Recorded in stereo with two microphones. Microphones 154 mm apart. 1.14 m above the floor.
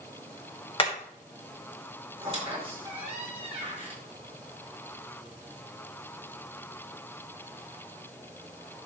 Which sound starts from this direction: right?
A squeak, at 2.2 s.